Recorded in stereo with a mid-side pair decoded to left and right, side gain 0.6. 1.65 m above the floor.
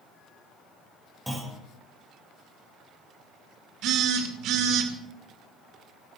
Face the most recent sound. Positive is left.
turn(degrees=-65)